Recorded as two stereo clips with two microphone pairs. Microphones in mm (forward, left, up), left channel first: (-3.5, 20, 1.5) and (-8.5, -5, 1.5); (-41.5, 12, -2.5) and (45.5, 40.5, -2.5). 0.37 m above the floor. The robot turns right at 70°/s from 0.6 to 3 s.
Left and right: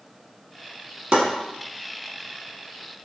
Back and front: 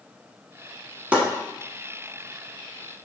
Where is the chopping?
55° right, 0.9 m; by 1.2 s 45° right, 0.9 m.